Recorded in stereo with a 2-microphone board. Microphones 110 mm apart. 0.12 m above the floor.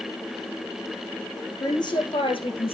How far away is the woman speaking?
About 2.5 m.